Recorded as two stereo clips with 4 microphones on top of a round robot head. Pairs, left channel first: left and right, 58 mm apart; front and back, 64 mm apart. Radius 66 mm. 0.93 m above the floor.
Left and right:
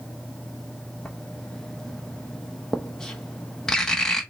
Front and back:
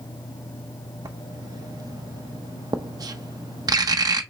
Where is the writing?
170° left, 0.7 m.